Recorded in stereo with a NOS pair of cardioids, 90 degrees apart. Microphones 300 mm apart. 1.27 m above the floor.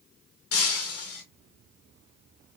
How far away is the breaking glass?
About 1.9 m.